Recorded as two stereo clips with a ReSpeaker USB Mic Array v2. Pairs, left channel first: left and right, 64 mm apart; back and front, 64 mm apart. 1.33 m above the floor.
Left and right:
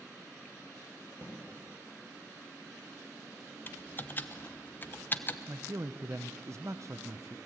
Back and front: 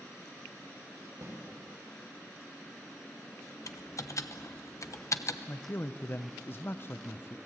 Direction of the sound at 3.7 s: 145° left.